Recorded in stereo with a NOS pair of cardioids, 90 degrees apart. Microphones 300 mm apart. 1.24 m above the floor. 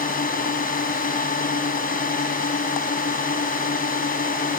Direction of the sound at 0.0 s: 30° left.